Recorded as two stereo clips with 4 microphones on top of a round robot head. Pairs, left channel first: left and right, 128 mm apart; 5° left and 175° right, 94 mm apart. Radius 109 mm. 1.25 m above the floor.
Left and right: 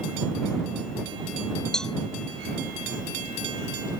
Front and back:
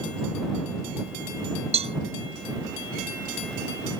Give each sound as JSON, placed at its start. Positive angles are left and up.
{"t": 1.7, "sound": "a cowbell", "azimuth_deg": 175}